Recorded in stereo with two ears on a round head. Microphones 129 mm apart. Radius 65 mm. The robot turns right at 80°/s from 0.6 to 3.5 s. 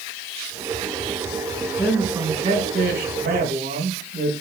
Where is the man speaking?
165° left, 3.5 m; by 4.3 s 60° right, 3.5 m.